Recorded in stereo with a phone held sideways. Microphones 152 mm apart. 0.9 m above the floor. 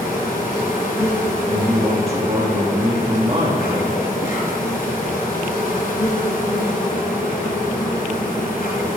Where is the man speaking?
40° right (ahead or behind), 1.8 m.